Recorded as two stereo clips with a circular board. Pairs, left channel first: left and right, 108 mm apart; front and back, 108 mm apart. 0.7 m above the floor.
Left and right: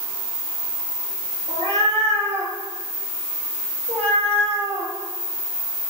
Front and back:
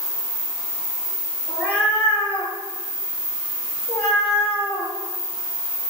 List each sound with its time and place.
1.5 s a cat meowing: 80° right, 5.5 m; by 4.9 s 75° right, 7.5 m